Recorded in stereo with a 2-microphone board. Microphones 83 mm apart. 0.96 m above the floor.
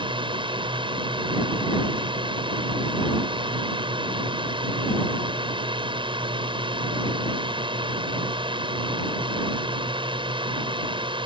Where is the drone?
70° right (ahead or behind).